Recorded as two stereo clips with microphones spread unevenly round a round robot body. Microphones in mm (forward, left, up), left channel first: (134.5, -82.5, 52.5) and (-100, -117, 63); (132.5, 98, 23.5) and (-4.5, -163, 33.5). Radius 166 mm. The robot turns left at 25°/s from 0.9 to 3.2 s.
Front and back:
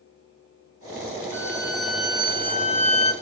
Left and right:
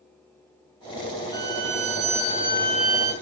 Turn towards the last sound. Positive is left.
turn(degrees=115)